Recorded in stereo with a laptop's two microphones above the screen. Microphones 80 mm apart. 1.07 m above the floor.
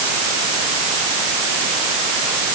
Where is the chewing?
I don't hear chewing.